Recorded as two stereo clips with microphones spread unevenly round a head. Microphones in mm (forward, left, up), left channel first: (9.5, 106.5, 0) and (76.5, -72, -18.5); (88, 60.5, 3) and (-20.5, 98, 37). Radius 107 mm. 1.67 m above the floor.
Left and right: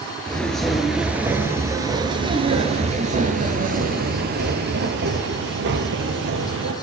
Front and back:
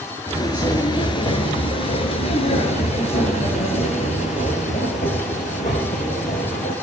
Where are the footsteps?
40° left, 1.9 m; by 6.7 s 75° right, 3 m.